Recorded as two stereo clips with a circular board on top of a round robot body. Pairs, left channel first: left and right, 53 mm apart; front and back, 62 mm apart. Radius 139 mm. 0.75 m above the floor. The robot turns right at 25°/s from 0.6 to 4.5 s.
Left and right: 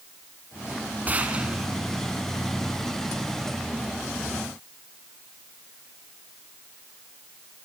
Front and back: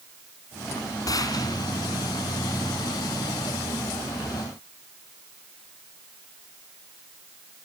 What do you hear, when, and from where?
1.1 s a gunshot: 30° right, 3 m; by 1.7 s 10° right, 3 m